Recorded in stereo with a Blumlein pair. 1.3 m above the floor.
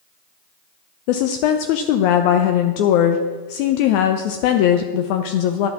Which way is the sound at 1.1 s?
45° left.